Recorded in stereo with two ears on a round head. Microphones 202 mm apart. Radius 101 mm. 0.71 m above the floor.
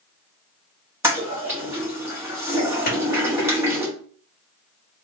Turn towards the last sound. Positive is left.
turn(degrees=40)  # may be behind; listen again after turning